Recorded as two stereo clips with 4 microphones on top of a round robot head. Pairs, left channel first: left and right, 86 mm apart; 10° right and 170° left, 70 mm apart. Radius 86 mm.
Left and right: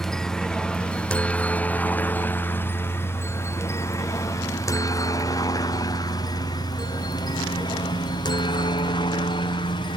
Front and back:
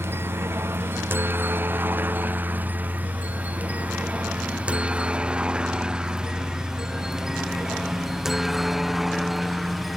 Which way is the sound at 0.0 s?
170° left.